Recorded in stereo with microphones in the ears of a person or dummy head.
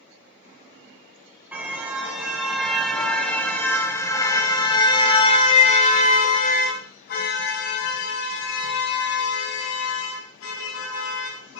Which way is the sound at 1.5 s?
5° right (ahead or behind).